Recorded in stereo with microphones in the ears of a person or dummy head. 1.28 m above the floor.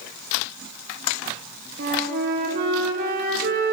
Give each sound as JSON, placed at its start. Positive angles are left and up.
{"t": 1.8, "sound": "a flute", "side_deg": -45, "distance_m": 0.8}